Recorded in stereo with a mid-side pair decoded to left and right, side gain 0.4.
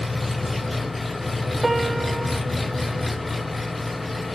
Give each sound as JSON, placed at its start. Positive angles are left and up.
{"t": 0.0, "sound": "an engine running", "azimuth_deg": 20, "distance_m": 0.8}
{"t": 1.6, "sound": "a piano", "azimuth_deg": -15, "distance_m": 0.6}